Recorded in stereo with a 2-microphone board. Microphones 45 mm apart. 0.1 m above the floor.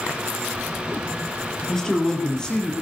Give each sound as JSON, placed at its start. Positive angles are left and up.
{"t": 1.7, "sound": "a man speaking", "side_deg": 10, "distance_m": 2.5}